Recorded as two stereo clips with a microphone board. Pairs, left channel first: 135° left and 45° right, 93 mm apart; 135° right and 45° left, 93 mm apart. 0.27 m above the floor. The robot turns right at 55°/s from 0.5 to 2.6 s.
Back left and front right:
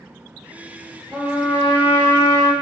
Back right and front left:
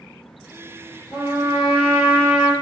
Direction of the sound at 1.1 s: 150° right.